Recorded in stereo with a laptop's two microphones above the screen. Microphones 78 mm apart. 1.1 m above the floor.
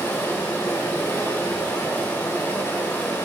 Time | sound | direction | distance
0.0 | running water | 25° left (ahead or behind) | 0.9 m